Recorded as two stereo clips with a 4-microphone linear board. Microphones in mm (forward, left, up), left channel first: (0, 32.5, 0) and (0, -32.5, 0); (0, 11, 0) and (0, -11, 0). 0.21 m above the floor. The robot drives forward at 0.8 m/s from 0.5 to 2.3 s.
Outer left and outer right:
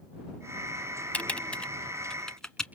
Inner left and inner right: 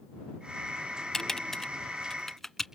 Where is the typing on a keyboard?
20° left (ahead or behind), 0.7 m; by 2.7 s 10° left (ahead or behind), 1.3 m.